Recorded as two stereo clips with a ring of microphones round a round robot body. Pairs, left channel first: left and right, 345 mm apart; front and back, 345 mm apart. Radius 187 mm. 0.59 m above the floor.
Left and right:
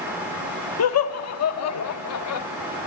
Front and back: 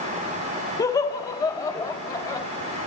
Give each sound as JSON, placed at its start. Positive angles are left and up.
{"t": 0.8, "sound": "laughter", "azimuth_deg": 75, "distance_m": 1.0}